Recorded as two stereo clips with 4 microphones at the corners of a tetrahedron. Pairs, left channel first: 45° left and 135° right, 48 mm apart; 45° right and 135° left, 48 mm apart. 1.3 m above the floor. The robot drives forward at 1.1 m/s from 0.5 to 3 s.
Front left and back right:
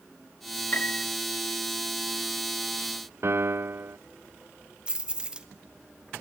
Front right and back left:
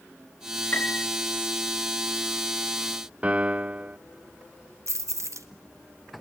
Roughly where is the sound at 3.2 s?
Behind.